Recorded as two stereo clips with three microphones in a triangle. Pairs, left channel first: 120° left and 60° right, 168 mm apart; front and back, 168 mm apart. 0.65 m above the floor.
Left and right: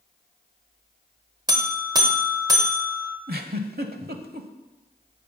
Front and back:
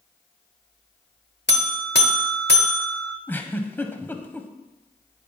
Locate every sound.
1.5 s a buzzer: 5° left, 1.0 m
3.3 s a giggle: 75° right, 0.9 m